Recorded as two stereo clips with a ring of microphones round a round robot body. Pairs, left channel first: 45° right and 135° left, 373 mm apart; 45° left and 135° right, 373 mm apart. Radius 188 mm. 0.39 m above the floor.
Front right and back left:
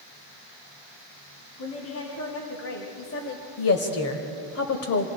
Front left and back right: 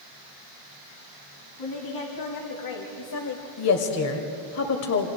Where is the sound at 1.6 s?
10° left, 3 m.